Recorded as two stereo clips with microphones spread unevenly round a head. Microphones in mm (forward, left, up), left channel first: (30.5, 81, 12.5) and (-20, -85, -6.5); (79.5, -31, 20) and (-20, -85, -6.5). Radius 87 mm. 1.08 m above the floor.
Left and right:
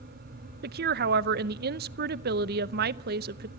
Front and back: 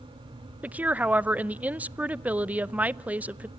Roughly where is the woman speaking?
Right.